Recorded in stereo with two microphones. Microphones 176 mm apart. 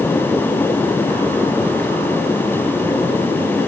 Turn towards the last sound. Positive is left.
No sound to turn to.